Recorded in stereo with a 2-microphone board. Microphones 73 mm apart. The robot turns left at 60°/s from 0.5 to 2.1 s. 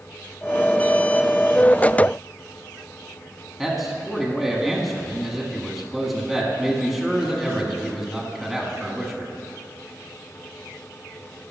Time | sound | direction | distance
3.6 | a man speaking | centre (ahead or behind) | 1.3 m